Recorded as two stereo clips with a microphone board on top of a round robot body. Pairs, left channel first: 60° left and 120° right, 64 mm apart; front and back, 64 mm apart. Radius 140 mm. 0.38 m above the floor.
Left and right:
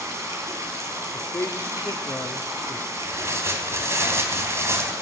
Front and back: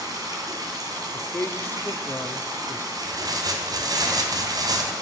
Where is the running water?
165° right, 3.5 m.